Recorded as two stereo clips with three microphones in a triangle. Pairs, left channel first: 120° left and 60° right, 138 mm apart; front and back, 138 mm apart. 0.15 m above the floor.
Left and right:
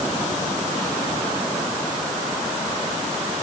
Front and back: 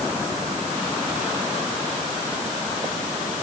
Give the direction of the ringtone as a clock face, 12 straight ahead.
No ringtone in this recording.